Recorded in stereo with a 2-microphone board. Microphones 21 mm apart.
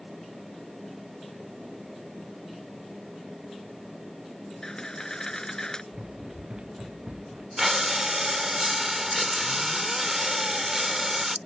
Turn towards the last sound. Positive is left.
turn(degrees=-15)  # may be behind; listen again after turning